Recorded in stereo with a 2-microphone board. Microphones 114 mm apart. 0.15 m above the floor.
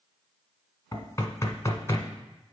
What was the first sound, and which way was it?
Knocking, 25° left (ahead or behind).